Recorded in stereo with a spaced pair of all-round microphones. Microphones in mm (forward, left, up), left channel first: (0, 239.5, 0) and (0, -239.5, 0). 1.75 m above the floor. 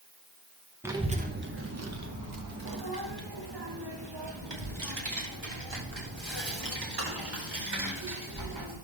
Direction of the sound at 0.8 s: 5° right (ahead or behind).